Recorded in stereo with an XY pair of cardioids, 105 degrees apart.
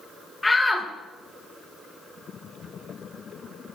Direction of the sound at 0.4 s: 20° left.